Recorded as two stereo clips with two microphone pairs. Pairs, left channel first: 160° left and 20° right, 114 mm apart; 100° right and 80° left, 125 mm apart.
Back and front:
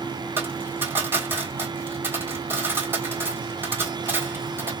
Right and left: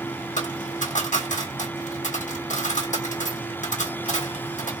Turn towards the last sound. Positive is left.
turn(degrees=-90)